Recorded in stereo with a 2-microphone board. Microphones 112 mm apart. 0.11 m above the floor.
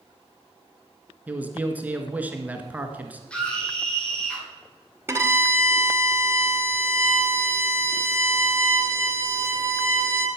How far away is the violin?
About 1.7 m.